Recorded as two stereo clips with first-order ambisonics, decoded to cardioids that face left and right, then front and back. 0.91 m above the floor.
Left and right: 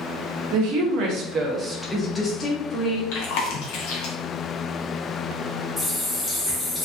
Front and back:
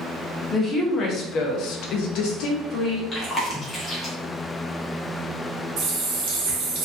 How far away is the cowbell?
No cowbell in this recording.